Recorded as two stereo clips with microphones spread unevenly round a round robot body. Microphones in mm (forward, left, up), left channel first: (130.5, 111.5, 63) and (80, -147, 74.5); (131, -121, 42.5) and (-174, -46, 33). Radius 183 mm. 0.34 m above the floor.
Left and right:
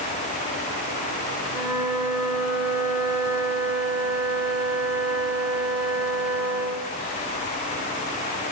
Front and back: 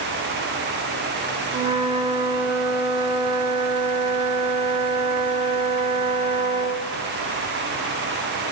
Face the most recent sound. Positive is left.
turn(degrees=-125)